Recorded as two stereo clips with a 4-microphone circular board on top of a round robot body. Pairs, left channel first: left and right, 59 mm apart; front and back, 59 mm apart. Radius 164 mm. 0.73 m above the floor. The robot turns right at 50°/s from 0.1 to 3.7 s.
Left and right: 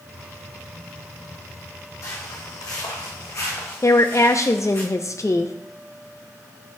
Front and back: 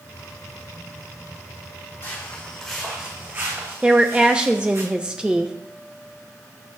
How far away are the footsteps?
About 2 m.